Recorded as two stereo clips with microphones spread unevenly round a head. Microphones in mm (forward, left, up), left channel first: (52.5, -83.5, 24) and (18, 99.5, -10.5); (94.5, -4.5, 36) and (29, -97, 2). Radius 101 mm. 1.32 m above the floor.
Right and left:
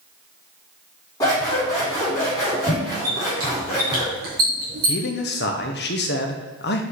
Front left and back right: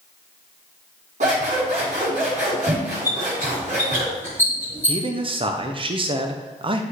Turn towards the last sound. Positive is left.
turn(degrees=-120)